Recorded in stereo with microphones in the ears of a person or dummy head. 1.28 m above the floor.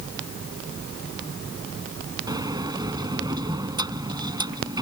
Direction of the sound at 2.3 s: 25° right (ahead or behind).